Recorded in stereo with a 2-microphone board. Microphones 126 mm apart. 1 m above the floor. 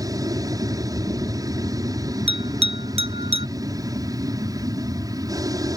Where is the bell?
50° right (ahead or behind).